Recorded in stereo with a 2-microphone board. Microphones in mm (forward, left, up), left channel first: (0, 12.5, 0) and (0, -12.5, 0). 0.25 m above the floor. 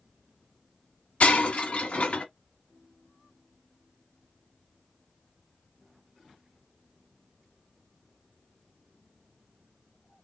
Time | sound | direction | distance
1.2 | breaking glass | 65° left (ahead or behind) | 1.2 m